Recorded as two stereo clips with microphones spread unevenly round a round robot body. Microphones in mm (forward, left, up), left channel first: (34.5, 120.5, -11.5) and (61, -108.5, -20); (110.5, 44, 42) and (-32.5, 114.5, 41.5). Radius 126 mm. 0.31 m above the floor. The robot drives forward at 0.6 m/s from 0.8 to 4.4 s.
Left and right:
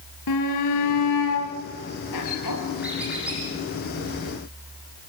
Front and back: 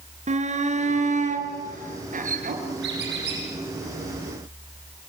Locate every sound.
0.3 s a shout: 110° left, 5 m; by 2.6 s 125° left, 5.5 m
2.8 s a squeak: 170° right, 6.5 m